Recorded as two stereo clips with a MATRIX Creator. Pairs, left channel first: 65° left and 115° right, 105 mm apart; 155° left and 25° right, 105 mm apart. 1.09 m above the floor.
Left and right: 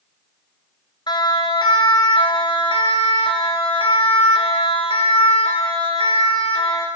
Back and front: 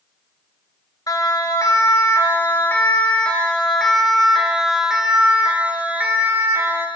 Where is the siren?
110° left, 4 m; by 6.9 s 45° left, 5 m.